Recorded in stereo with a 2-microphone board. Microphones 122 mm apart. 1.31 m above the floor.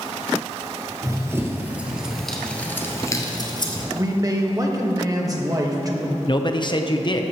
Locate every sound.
1.0 s running footsteps: 25° right (ahead or behind), 1.7 m; by 3.9 s 40° left (ahead or behind), 1.6 m
4.0 s a man speaking: 30° right (ahead or behind), 1.3 m
6.3 s a man speaking: 40° left (ahead or behind), 0.7 m